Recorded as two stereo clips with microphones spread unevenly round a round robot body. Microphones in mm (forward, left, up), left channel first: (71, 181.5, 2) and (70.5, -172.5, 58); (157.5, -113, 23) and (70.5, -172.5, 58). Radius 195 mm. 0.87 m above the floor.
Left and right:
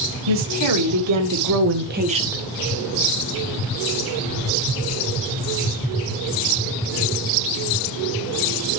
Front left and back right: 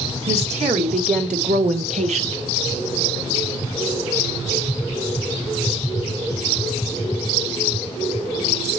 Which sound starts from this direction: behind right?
A woman speaking, at 0.3 s.